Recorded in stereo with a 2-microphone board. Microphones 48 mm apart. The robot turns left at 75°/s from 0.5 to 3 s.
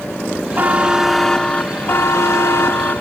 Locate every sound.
0.6 s a buzzer: 135° right, 0.6 m; by 3.0 s 40° left, 0.6 m